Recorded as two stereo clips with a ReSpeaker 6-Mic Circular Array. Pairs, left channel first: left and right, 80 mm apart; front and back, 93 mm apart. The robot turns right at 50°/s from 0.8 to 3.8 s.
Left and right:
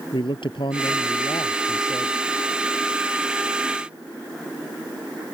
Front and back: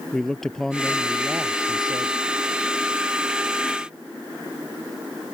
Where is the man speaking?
85° left; by 2.2 s 155° left.